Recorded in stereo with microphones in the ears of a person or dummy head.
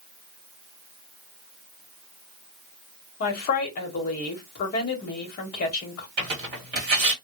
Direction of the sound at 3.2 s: 45° left (ahead or behind).